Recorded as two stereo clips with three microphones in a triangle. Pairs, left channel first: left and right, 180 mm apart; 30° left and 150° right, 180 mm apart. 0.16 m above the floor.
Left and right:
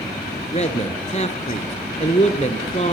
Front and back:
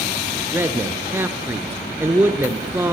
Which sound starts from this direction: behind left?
A man speaking, at 0.5 s.